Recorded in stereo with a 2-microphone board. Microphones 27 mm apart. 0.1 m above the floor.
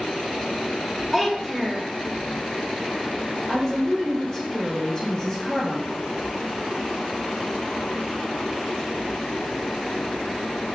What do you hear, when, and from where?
1.1 s a child speaking: 10° left (ahead or behind), 1.0 m
3.5 s a woman speaking: 25° left (ahead or behind), 1.5 m